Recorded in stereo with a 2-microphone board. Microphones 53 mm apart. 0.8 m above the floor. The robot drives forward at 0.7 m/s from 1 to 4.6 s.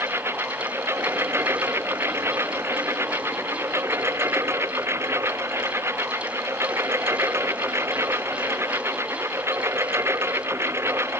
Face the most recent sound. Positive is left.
turn(degrees=-55)  # may be behind; listen again after turning